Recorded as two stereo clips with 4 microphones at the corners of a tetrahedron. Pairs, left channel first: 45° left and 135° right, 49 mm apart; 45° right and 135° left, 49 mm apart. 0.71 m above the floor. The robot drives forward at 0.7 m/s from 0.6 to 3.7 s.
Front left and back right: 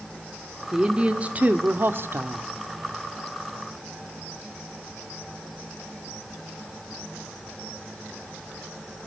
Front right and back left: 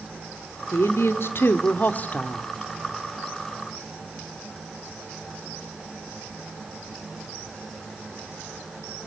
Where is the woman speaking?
60° right, 1.7 m; by 2.5 s 110° right, 1.5 m.